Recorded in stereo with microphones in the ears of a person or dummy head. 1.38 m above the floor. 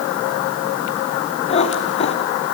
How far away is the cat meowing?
About 1.9 m.